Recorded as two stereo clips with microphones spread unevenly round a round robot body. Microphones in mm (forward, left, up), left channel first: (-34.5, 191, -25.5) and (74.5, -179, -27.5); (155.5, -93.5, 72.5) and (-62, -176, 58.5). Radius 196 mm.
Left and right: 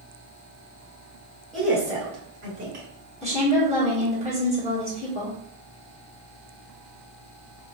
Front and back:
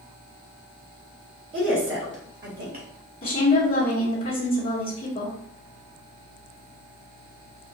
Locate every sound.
1.5 s a woman speaking: 165° right, 1.7 m; by 2.9 s 120° right, 1.7 m
3.2 s a woman speaking: 65° left, 1.2 m